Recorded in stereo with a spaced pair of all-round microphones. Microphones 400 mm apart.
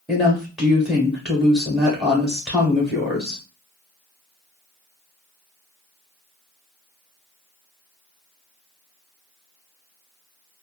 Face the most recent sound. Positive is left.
turn(degrees=0)  # may be behind; listen again after turning